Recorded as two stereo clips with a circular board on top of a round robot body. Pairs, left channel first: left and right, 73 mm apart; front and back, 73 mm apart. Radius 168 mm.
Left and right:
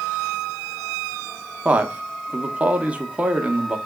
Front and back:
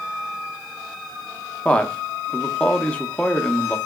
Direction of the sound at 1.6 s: 50° right.